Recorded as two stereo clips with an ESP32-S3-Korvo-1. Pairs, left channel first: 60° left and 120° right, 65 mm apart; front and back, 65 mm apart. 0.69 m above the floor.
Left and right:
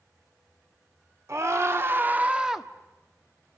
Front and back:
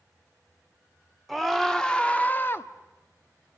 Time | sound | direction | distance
1.3 | a scream | 90° right | 2 m